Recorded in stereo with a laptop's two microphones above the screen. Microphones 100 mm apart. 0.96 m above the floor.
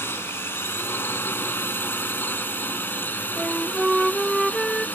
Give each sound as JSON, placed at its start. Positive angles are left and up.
{"t": 0.0, "sound": "a drone", "side_deg": 25}
{"t": 3.4, "sound": "a flute", "side_deg": 0}